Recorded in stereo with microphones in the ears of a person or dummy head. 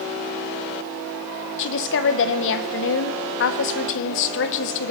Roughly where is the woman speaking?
Left.